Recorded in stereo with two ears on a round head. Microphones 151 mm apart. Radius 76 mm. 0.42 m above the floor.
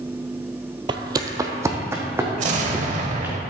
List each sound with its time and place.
0.9 s footsteps: 30° right (ahead or behind), 0.6 m; by 3.4 s 10° right (ahead or behind), 3 m
2.4 s an explosion: 45° right (ahead or behind), 0.9 m